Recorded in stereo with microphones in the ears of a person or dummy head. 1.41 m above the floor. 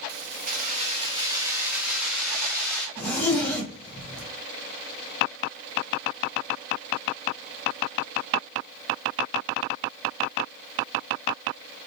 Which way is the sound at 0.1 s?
55° right (ahead or behind).